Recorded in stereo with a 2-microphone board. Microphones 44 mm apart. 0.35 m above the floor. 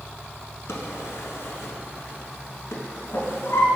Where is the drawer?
75° left (ahead or behind), 1.0 m.